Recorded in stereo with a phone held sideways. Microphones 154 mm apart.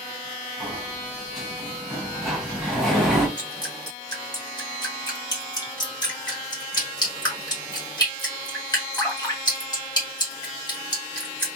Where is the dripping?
25° left (ahead or behind), 1.2 m.